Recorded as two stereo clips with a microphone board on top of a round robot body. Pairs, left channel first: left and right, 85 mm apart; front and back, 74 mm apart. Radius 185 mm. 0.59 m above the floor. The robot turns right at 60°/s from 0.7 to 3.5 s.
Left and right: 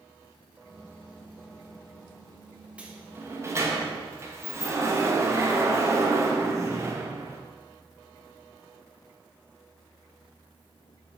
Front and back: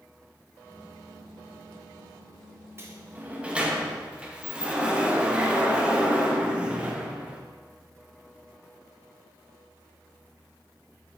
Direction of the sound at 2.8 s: 155° right.